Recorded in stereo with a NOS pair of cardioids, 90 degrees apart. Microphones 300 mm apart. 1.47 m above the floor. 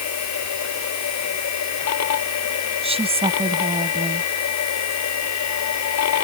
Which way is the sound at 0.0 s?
65° left.